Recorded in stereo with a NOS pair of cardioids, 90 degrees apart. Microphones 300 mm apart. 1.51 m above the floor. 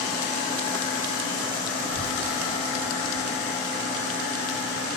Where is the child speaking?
30° right, 1.1 m; by 5.0 s 40° left, 3 m.